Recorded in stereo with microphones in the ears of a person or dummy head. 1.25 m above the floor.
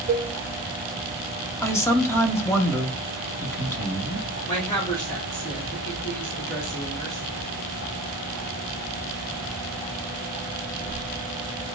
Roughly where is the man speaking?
Centre.